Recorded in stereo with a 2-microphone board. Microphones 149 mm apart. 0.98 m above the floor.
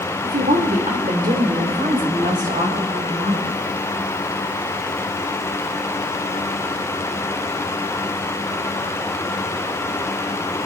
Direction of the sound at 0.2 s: 70° right (ahead or behind).